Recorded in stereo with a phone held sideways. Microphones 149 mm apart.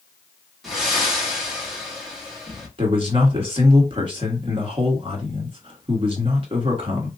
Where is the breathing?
Centre (ahead or behind), 1.6 m.